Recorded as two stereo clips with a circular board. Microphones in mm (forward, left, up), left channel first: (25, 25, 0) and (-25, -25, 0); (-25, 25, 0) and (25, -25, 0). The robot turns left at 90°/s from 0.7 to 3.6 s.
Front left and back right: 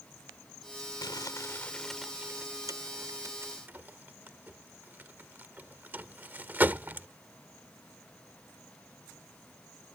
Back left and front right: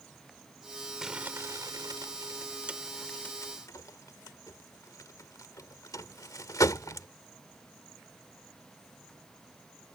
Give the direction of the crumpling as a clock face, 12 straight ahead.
11 o'clock.